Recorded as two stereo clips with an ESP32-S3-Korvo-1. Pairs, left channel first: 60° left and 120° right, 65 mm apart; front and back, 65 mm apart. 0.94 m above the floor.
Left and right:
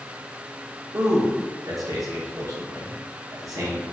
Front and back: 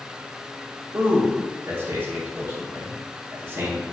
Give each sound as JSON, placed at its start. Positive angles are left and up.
{"t": 0.9, "sound": "a man speaking", "azimuth_deg": -130, "distance_m": 0.8}